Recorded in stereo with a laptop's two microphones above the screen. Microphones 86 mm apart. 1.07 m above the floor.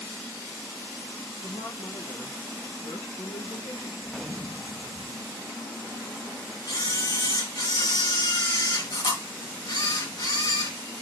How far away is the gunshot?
About 0.8 m.